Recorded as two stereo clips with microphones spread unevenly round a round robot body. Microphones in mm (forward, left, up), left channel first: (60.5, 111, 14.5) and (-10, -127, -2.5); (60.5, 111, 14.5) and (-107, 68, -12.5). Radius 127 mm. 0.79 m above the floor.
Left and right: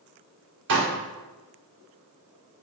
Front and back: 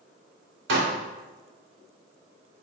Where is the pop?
155° right, 2.5 m.